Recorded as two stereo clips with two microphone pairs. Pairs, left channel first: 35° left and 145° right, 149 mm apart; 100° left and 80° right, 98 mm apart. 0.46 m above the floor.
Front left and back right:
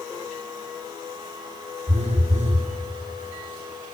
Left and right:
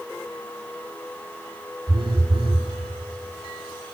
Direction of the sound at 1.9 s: 110° right.